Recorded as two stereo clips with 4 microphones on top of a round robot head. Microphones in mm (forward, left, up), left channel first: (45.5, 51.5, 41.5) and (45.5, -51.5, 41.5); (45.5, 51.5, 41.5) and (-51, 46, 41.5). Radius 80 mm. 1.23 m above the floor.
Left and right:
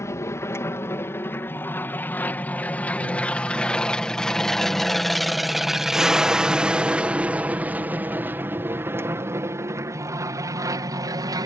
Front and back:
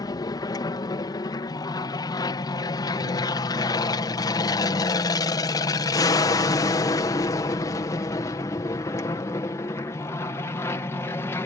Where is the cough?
I don't hear a cough.